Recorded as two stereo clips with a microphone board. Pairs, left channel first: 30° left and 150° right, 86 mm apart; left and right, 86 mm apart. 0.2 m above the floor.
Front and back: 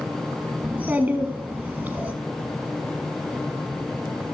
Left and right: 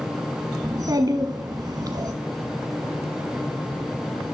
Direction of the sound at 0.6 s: 85° right.